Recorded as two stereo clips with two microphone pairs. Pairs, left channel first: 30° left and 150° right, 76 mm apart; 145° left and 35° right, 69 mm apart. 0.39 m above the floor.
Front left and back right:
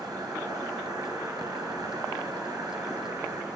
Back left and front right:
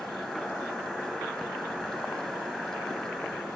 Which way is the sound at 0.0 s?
140° right.